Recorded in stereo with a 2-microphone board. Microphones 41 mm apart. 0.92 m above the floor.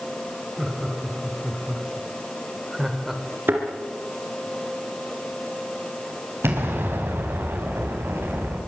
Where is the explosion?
75° right (ahead or behind), 4.5 m.